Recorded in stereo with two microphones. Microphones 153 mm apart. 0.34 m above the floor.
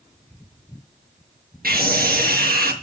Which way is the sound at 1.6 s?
75° right (ahead or behind).